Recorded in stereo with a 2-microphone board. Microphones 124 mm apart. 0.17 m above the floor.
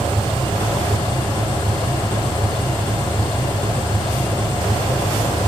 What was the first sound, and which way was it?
An engine running, 40° left (ahead or behind).